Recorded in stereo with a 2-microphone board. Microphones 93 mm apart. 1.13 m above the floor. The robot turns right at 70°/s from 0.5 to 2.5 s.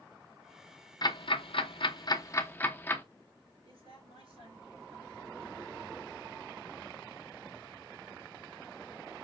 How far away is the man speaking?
About 3 m.